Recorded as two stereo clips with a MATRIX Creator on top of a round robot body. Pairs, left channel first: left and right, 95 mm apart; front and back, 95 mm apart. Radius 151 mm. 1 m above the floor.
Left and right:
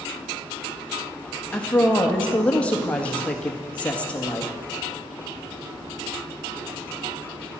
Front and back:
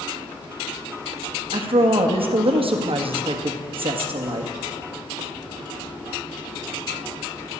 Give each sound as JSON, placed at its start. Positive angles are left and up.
{"t": 1.5, "sound": "a woman speaking", "azimuth_deg": 165, "distance_m": 1.9}